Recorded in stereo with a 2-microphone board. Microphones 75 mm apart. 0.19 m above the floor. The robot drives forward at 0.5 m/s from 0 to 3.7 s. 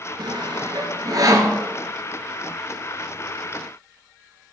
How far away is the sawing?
About 0.7 m.